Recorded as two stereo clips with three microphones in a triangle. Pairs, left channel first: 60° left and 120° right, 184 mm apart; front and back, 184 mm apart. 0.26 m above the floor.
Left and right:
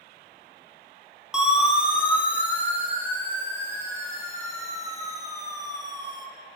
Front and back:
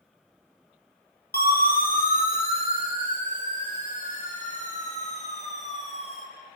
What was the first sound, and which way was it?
A siren, 35° right.